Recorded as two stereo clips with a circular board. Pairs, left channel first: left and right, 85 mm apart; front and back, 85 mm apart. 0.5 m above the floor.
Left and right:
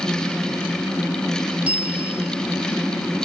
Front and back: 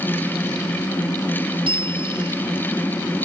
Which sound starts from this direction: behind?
A bell, at 1.6 s.